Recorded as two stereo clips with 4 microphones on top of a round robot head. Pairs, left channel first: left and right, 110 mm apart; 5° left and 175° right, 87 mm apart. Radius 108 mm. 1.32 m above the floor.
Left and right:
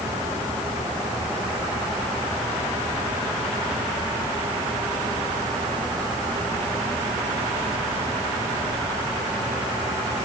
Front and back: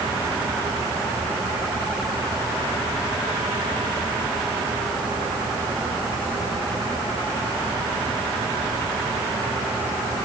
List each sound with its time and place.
Only background noise.